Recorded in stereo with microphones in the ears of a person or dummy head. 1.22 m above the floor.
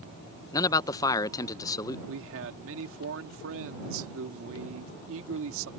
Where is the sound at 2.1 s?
75° right (ahead or behind).